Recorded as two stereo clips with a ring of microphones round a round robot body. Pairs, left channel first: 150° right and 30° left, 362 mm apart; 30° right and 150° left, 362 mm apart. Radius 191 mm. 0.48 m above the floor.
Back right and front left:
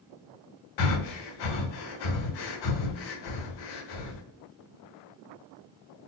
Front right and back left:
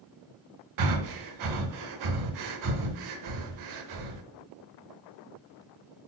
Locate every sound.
0.8 s breathing: 170° right, 0.7 m